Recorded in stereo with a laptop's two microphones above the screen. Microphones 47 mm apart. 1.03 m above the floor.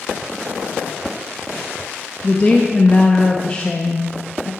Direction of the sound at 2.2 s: 20° left (ahead or behind).